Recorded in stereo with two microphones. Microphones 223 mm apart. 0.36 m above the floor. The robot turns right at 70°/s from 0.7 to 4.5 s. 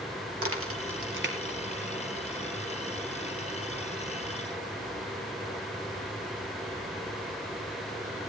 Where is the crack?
85° right, 2.5 m; by 2.0 s centre (ahead or behind), 2.5 m.